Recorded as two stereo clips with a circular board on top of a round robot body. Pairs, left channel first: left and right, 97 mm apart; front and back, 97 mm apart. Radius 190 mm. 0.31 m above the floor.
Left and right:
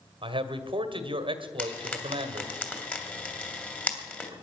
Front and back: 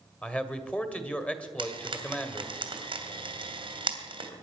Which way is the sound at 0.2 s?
75° right.